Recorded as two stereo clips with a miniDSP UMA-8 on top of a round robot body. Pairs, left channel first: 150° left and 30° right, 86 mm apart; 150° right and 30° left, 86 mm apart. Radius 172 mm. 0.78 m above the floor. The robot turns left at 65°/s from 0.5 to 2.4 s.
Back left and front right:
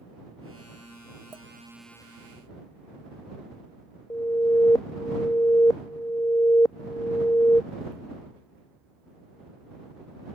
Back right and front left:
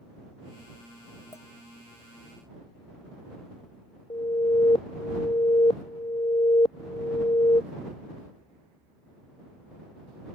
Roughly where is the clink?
Right.